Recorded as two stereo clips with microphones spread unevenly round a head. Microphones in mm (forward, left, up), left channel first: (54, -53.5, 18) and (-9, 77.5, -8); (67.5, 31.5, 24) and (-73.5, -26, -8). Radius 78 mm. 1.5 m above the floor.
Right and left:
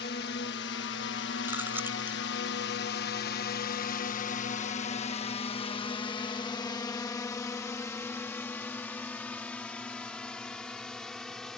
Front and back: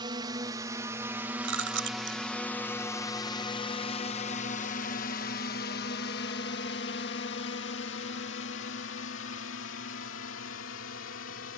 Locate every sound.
0.0 s a drone: 95° right; by 11.6 s 20° left
1.4 s chewing: 165° right